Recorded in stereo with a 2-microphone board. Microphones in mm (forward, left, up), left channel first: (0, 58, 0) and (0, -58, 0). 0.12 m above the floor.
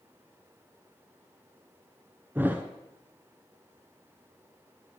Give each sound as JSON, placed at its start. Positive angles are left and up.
{"t": 2.4, "sound": "a thud", "side_deg": -20, "distance_m": 0.8}